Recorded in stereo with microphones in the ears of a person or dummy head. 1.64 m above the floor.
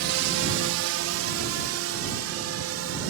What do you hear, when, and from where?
0.0 s a drone: 60° right (ahead or behind); by 3.1 s 75° right (ahead or behind)